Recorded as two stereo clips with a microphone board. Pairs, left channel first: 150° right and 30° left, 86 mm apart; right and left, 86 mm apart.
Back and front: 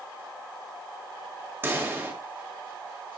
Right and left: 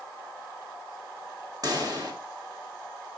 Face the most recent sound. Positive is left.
turn(degrees=85)